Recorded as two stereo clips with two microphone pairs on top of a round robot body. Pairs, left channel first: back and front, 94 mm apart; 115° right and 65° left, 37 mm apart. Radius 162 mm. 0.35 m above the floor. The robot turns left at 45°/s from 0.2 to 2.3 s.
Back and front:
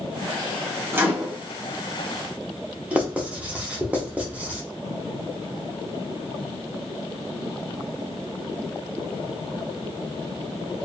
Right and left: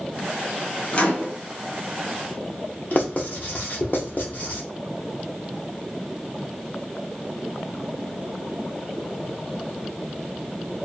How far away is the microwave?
About 1.2 m.